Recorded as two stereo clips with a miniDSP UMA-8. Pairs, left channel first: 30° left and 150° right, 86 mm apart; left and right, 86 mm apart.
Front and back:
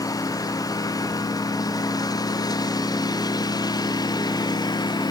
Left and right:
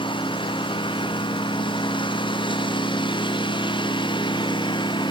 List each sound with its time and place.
0.0 s a lawn mower: 75° left; by 5.1 s 70° left